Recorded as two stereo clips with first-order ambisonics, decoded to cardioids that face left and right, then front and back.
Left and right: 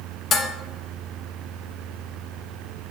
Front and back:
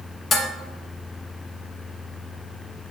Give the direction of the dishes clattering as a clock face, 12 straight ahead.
10 o'clock.